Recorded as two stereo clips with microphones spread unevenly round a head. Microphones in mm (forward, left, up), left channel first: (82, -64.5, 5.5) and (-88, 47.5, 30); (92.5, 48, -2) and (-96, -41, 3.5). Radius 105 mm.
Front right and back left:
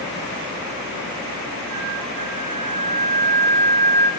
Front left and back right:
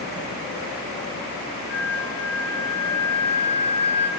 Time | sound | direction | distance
1.7 | a flute | 70° left | 0.9 m